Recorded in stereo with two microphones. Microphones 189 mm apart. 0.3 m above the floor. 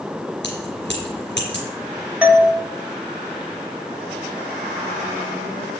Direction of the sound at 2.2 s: 5° right (ahead or behind).